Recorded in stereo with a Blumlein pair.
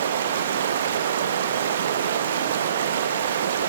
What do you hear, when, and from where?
0.0 s running water: 60° right, 0.8 m